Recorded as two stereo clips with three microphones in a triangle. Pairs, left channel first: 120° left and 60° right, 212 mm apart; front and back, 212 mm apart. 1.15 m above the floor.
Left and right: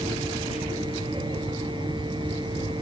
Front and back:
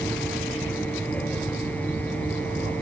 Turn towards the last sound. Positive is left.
turn(degrees=60)